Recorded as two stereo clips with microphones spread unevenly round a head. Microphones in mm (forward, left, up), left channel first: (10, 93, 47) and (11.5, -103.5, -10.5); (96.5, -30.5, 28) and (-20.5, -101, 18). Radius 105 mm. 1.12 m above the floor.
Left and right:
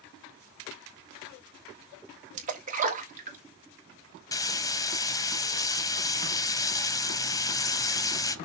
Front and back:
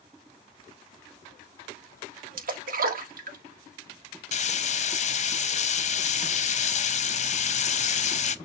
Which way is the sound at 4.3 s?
10° left.